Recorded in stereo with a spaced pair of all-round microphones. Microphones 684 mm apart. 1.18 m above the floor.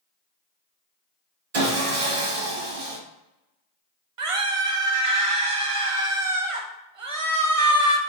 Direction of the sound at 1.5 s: 55° right (ahead or behind).